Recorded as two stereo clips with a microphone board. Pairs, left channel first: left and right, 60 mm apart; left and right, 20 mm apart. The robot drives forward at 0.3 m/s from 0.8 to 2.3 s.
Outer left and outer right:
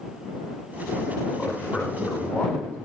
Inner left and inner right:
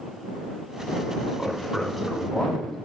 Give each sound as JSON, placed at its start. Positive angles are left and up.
{"t": 1.4, "sound": "a man speaking", "side_deg": 25, "distance_m": 1.2}